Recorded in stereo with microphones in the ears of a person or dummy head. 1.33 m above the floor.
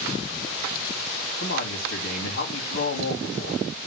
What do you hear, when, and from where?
1.4 s a man speaking: 55° left (ahead or behind), 3 m